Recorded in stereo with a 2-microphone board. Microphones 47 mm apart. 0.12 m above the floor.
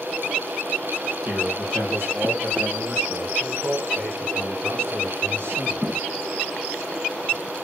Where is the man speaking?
55° right (ahead or behind), 4 m; by 6.1 s 75° right (ahead or behind), 6.5 m.